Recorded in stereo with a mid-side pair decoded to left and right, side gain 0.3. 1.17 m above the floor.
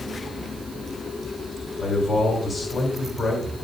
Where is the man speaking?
55° left, 3.5 m.